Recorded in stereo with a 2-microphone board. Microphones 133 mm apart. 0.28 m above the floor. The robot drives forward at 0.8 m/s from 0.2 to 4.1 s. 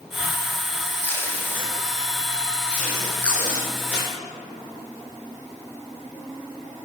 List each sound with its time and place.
1.0 s tape being pulled: 20° left (ahead or behind), 1.4 m; by 4.1 s 5° left (ahead or behind), 3.5 m